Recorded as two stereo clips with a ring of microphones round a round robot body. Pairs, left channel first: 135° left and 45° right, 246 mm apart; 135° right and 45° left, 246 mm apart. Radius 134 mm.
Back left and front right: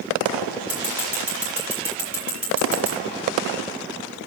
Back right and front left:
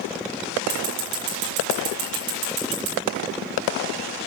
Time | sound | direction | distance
0.7 | scissors | 40° left | 8 m